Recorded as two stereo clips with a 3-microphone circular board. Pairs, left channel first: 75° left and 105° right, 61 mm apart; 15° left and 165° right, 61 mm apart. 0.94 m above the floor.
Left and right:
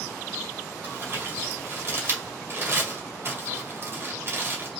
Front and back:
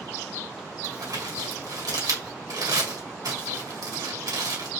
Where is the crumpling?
155° right, 2.5 m.